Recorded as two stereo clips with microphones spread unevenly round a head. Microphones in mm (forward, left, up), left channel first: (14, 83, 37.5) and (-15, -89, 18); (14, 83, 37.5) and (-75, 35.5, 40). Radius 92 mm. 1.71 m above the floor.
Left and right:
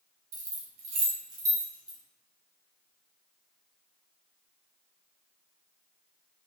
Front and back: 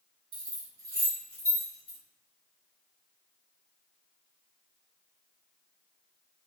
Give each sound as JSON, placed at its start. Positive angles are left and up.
{"t": 0.3, "sound": "keys jangling", "azimuth_deg": -145, "distance_m": 0.8}